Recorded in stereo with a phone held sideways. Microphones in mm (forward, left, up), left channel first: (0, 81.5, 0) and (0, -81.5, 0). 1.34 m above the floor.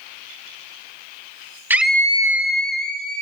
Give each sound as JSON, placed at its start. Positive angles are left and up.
{"t": 1.7, "sound": "a scream", "side_deg": -10, "distance_m": 0.9}